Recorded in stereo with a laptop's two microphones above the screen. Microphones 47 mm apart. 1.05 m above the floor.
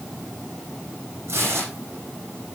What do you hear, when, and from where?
1.3 s tearing paper: 55° right (ahead or behind), 8.5 m